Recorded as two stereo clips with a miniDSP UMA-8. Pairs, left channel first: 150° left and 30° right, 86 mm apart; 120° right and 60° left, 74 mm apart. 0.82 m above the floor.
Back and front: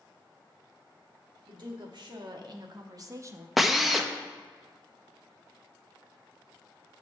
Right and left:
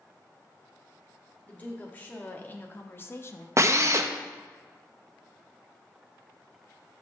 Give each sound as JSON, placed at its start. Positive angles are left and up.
{"t": 1.5, "sound": "a woman speaking", "azimuth_deg": -55, "distance_m": 1.4}
{"t": 3.6, "sound": "a drill", "azimuth_deg": 55, "distance_m": 0.5}